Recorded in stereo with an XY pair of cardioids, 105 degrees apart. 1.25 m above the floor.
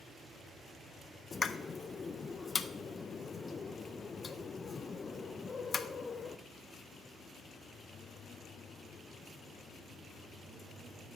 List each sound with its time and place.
1.3 s a pop: 30° left, 0.6 m